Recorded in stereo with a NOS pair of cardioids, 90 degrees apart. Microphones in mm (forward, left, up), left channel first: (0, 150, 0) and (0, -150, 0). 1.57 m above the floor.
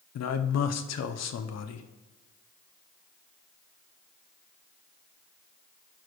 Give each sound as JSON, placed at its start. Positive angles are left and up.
{"t": 0.1, "sound": "a man speaking", "azimuth_deg": 60, "distance_m": 1.0}